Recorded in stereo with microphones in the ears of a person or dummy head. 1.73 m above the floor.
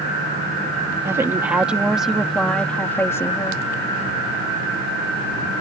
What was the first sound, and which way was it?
A woman speaking, 15° right (ahead or behind).